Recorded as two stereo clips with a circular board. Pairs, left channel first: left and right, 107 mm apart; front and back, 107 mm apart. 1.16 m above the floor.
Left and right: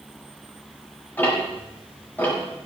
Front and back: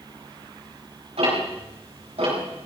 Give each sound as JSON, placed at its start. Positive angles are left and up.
{"t": 1.2, "sound": "ticking", "azimuth_deg": 165, "distance_m": 6.5}